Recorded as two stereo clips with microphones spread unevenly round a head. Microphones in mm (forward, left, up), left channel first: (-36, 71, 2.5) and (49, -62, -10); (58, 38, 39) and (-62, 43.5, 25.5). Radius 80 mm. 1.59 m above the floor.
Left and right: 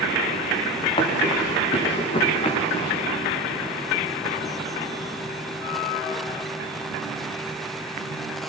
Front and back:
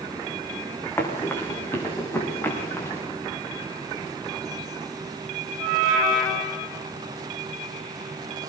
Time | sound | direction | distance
1.0 | running footsteps | 65° left | 6 m